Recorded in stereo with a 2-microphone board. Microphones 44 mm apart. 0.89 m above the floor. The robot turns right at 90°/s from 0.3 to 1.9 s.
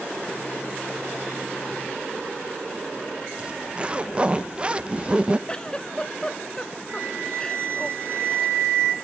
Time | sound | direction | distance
3.4 | a zipper | 25° right (ahead or behind) | 0.5 m
5.5 | a giggle | 20° left (ahead or behind) | 0.6 m
6.9 | a flute | 60° right (ahead or behind) | 2 m